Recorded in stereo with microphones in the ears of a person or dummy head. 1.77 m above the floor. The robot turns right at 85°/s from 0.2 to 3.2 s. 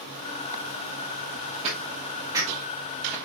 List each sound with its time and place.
1.6 s footsteps: 30° right (ahead or behind), 2 m; by 3.1 s 15° left (ahead or behind), 2.5 m